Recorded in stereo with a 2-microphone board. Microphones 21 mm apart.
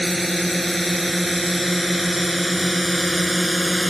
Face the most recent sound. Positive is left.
turn(degrees=-15)  # may be behind; listen again after turning